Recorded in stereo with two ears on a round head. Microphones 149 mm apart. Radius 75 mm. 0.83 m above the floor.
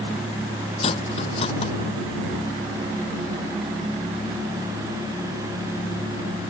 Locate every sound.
0.8 s cutlery clinking: 35° left (ahead or behind)